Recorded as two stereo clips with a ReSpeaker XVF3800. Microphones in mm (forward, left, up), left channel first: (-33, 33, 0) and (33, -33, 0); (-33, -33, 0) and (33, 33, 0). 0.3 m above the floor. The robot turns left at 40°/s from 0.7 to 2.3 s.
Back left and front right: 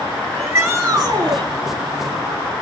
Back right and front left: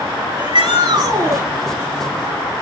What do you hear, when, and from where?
0.3 s a shout: 20° left, 4 m; by 1.5 s 10° right, 4 m